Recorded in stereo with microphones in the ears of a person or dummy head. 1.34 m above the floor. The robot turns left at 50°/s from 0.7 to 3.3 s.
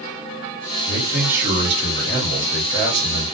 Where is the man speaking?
10° left, 1.3 m; by 3.3 s 115° right, 1.3 m.